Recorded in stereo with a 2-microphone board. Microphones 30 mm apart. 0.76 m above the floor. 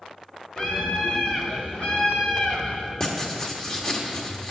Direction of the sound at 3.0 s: 25° left (ahead or behind).